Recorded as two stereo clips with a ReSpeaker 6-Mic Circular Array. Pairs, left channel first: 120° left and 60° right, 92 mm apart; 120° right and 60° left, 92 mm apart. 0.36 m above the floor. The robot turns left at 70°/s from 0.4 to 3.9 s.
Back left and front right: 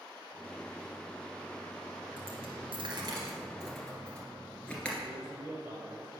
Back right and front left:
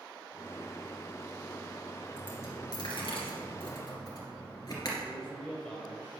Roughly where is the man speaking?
Ahead right.